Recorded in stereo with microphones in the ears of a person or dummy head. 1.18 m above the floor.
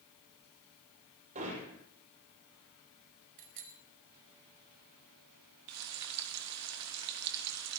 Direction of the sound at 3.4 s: 65° right (ahead or behind).